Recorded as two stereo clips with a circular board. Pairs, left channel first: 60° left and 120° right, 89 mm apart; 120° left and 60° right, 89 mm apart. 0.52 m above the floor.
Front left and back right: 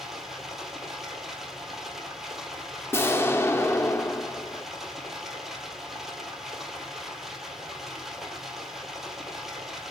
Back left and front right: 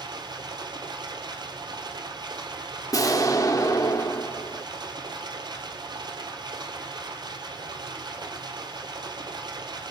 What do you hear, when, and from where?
0.0 s running water: 30° right, 1.9 m
2.9 s an explosion: 105° left, 0.8 m